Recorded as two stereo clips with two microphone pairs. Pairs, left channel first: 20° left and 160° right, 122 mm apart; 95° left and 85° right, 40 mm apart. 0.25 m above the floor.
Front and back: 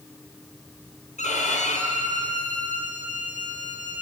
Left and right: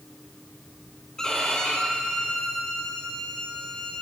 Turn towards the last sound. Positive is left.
turn(degrees=20)